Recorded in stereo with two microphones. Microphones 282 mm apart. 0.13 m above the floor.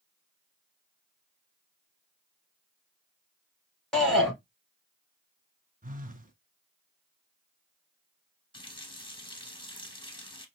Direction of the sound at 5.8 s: 30° right (ahead or behind).